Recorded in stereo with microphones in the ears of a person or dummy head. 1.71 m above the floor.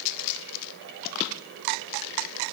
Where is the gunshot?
I don't hear a gunshot.